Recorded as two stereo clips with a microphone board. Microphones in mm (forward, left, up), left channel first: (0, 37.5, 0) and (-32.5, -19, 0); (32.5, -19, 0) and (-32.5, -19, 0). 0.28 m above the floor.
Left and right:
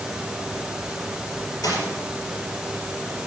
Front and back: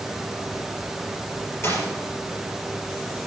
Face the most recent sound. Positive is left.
turn(degrees=45)